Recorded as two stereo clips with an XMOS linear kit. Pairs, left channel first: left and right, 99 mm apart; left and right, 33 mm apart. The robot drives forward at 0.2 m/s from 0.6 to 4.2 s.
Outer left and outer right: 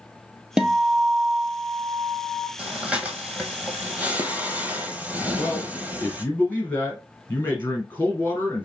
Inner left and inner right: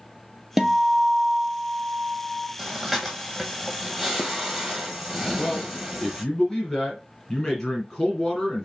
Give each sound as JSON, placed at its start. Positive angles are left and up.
{"t": 0.6, "sound": "a guitar", "side_deg": -10, "distance_m": 0.7}
{"t": 2.6, "sound": "breathing", "side_deg": -10, "distance_m": 1.2}
{"t": 5.4, "sound": "a man speaking", "side_deg": 20, "distance_m": 2.5}